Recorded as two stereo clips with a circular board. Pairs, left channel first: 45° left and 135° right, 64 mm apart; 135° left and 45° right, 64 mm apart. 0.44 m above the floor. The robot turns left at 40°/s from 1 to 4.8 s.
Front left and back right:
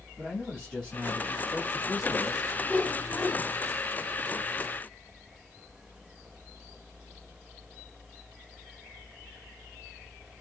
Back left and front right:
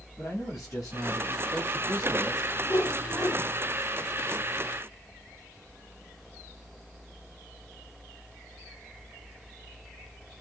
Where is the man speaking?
120° left, 2.5 m; by 2.5 s 60° left, 2.5 m.